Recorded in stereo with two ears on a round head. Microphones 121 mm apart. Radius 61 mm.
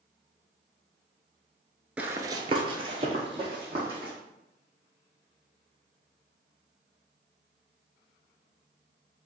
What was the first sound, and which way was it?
Running footsteps, 10° right (ahead or behind).